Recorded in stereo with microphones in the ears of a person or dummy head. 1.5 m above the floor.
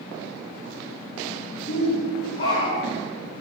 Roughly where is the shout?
Left.